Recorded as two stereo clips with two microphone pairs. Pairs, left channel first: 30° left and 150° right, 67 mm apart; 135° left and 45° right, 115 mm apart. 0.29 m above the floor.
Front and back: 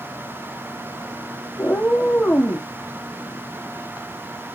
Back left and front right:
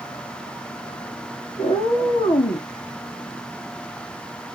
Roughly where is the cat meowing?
Left.